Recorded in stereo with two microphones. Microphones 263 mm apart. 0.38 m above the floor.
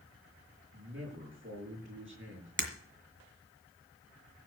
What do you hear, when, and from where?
0.7 s a man speaking: 45° right (ahead or behind), 6.5 m
2.6 s breaking glass: 45° right (ahead or behind), 1.9 m